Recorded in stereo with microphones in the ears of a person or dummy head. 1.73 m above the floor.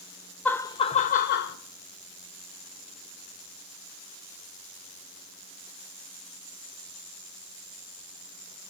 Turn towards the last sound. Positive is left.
turn(degrees=55)  # may be behind; listen again after turning